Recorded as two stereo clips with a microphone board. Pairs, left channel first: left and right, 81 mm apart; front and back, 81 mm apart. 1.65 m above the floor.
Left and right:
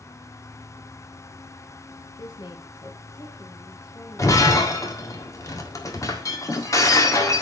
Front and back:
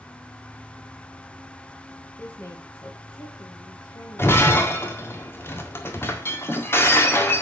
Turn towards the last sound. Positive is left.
turn(degrees=50)